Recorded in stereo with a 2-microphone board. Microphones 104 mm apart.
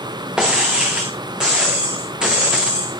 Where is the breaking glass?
5° right (ahead or behind), 2.5 m.